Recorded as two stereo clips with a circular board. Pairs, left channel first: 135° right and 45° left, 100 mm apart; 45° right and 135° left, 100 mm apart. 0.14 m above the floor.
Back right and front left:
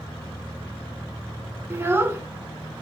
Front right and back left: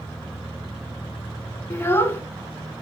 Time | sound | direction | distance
1.7 | a child speaking | straight ahead | 0.7 m